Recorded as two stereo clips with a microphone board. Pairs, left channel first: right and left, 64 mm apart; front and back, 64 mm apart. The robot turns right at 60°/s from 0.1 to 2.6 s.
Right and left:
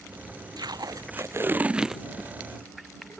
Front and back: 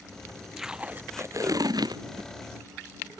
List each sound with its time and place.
0.6 s tape being pulled: 95° left; by 3.2 s 145° right